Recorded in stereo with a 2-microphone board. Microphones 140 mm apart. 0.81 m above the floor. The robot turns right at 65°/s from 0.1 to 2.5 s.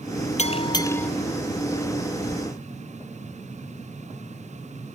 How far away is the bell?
About 0.6 m.